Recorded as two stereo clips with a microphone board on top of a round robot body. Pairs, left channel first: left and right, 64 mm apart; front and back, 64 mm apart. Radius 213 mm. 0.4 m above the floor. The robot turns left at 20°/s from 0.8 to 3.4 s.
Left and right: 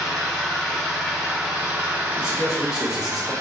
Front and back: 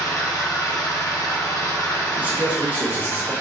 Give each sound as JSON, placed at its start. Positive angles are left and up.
{"t": 0.0, "sound": "an engine running", "azimuth_deg": 5, "distance_m": 1.3}
{"t": 2.2, "sound": "a man speaking", "azimuth_deg": -150, "distance_m": 1.0}